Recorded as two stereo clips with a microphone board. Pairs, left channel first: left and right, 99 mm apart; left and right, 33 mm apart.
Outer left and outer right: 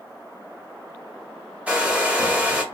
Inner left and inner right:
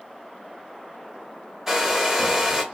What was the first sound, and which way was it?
A hair dryer, 15° right (ahead or behind).